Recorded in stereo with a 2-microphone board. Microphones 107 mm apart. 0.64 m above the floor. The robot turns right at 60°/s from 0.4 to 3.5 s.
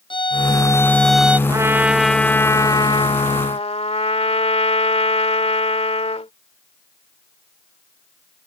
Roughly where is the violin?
Behind left.